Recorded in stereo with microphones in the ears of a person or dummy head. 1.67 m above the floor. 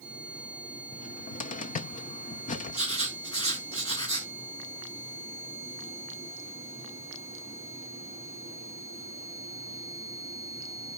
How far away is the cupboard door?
About 0.6 m.